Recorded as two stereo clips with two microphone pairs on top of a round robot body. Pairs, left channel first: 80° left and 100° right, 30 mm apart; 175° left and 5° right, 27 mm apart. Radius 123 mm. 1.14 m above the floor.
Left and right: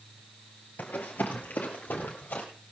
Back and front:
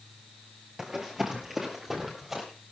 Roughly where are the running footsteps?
Ahead left.